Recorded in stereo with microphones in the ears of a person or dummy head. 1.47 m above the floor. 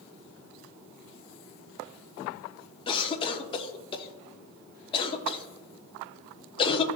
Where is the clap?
No clap in this recording.